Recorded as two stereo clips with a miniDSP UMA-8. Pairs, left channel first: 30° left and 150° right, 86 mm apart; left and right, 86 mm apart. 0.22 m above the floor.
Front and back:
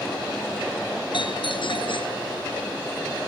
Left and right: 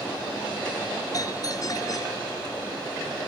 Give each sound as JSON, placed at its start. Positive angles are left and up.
{"t": 1.1, "sound": "a doorbell", "azimuth_deg": 45}